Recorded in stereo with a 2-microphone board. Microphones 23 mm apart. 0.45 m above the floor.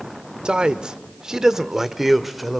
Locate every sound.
0.5 s a man speaking: 50° right (ahead or behind), 1.0 m; by 2.6 s centre (ahead or behind), 1.2 m